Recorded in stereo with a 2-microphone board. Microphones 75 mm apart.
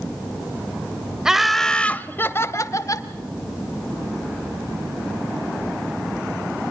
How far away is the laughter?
About 0.9 m.